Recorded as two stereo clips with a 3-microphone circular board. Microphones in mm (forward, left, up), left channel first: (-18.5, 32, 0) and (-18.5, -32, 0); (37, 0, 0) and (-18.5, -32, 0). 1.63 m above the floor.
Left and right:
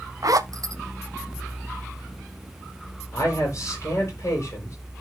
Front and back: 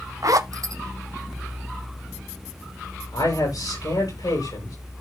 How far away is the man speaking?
About 7 m.